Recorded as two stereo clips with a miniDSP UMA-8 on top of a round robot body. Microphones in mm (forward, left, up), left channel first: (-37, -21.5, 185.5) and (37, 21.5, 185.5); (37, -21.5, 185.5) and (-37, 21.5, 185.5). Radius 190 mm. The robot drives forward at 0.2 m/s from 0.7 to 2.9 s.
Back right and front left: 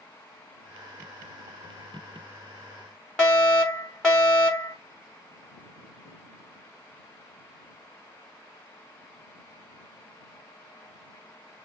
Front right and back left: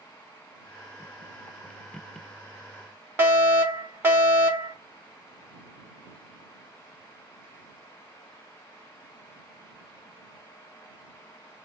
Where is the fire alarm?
135° left, 1.3 m.